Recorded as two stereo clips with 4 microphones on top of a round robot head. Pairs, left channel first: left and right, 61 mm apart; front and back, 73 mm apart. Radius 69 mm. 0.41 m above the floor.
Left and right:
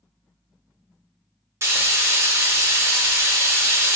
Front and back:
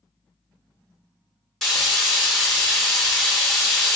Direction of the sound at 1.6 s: 85° right.